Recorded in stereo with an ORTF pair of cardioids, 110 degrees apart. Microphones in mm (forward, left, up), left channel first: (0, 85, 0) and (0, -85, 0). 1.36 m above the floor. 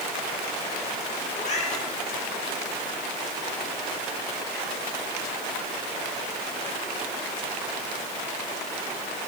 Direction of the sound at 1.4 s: 45° left.